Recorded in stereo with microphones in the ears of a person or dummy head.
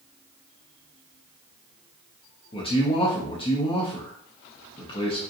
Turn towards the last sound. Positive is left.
turn(degrees=20)  # may be behind; listen again after turning